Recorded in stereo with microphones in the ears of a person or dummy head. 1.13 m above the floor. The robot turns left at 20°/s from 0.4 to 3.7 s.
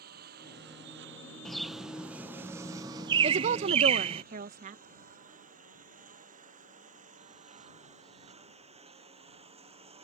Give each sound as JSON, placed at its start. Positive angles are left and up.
{"t": 0.0, "sound": "a lawn mower", "side_deg": -55}
{"t": 1.4, "sound": "a bird", "azimuth_deg": 5}
{"t": 3.2, "sound": "a woman speaking", "side_deg": -35}